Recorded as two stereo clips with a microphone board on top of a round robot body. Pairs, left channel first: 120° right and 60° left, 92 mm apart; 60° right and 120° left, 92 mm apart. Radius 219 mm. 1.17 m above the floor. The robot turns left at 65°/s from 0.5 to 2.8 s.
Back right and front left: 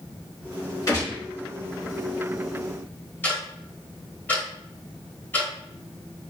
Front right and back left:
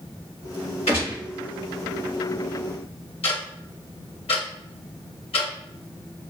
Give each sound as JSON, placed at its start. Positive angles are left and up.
{"t": 0.9, "sound": "a gunshot", "azimuth_deg": -70, "distance_m": 1.6}
{"t": 3.2, "sound": "ticking", "azimuth_deg": -50, "distance_m": 0.9}